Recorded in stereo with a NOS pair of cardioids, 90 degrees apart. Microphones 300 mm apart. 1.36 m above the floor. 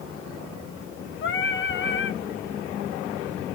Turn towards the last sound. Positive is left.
turn(degrees=45)